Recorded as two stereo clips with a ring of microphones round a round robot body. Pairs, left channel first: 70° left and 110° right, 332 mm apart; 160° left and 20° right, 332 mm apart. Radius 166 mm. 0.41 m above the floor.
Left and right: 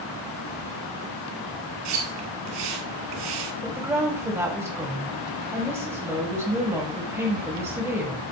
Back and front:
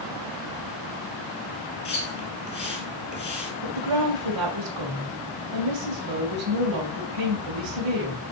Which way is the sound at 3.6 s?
30° right.